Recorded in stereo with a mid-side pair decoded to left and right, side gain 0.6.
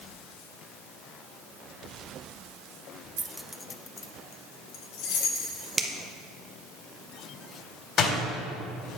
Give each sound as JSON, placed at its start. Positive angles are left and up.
{"t": 3.2, "sound": "keys jangling", "azimuth_deg": -30, "distance_m": 0.5}
{"t": 5.8, "sound": "a finger snap", "azimuth_deg": -20, "distance_m": 1.0}
{"t": 8.0, "sound": "a door slam", "azimuth_deg": 50, "distance_m": 3.0}